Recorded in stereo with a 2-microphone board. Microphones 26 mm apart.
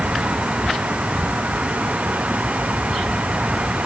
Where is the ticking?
No ticking in this recording.